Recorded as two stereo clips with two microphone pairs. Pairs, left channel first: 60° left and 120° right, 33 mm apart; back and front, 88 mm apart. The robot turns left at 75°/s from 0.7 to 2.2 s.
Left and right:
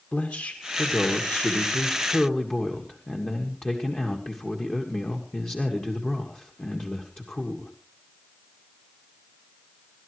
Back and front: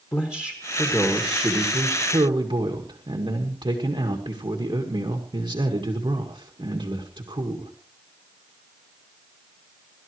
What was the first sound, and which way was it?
A man speaking, 125° left.